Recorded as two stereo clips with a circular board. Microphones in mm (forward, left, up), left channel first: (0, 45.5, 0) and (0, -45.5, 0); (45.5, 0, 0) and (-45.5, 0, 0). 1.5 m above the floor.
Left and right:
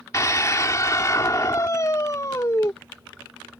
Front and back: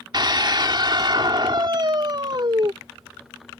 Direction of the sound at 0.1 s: 145° left.